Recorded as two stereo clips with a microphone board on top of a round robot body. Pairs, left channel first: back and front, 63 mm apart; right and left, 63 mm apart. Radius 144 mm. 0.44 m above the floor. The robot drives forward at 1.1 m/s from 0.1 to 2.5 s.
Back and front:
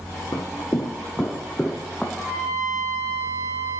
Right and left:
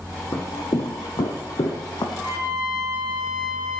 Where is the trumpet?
20° left, 4.5 m.